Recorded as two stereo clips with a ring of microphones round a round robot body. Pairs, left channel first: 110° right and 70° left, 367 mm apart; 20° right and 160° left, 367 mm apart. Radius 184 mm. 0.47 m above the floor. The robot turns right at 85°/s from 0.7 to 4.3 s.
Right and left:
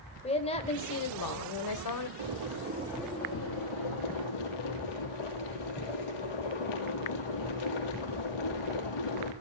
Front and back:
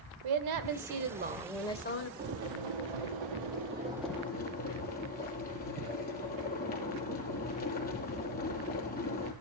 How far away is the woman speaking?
About 1.6 m.